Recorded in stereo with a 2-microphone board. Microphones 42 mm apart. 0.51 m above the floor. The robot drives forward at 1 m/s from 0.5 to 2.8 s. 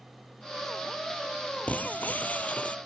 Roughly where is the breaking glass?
Left.